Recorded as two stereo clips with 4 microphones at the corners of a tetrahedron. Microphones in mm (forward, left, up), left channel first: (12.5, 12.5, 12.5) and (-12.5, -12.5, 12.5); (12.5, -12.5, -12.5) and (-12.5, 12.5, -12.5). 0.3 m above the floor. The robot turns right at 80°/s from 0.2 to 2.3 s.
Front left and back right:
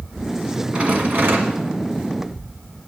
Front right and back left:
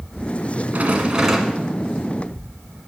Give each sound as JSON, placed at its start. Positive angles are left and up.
{"t": 0.7, "sound": "a rattle", "azimuth_deg": 165, "distance_m": 1.6}